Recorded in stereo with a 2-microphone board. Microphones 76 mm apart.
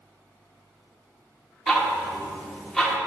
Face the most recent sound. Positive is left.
turn(degrees=5)  # may be behind; listen again after turning